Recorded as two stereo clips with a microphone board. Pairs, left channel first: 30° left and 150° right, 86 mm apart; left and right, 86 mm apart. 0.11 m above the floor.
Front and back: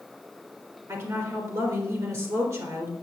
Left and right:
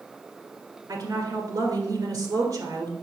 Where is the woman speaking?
120° right, 1.9 m.